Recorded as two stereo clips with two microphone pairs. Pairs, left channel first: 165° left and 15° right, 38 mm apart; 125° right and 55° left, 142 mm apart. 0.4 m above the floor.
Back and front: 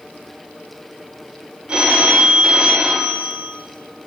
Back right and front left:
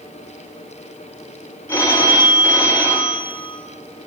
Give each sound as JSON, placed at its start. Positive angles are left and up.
{"t": 1.7, "sound": "a phone ringing", "azimuth_deg": -60, "distance_m": 0.6}